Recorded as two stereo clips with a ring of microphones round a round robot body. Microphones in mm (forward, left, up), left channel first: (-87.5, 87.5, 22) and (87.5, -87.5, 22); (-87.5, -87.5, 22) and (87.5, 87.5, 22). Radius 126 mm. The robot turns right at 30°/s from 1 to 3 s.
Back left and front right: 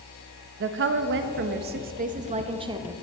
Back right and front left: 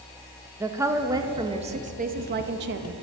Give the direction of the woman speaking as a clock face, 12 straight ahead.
1 o'clock.